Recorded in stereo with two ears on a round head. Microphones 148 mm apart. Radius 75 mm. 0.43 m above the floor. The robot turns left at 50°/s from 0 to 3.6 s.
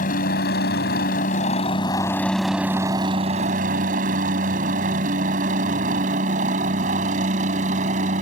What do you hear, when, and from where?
0.0 s a helicopter: 55° left (ahead or behind); by 8.2 s 45° right (ahead or behind)